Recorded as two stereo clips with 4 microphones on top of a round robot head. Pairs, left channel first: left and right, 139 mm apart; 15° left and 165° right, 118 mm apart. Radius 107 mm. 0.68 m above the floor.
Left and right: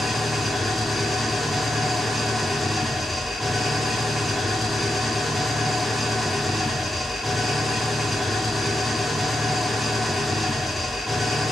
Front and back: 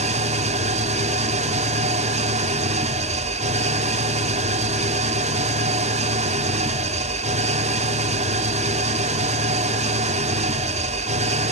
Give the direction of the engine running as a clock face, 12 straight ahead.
6 o'clock.